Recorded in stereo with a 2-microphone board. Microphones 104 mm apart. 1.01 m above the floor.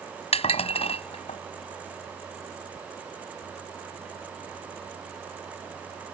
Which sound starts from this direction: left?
Dishes clattering, at 0.3 s.